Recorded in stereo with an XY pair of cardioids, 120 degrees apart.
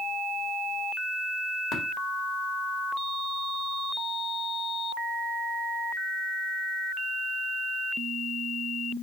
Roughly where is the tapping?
Ahead left.